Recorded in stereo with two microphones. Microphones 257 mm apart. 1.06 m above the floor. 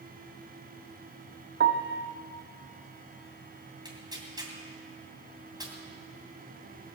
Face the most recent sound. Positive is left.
turn(degrees=-15)  # may be behind; listen again after turning